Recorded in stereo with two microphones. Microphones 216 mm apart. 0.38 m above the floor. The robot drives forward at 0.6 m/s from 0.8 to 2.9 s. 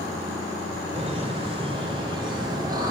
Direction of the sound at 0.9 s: 30° right (ahead or behind).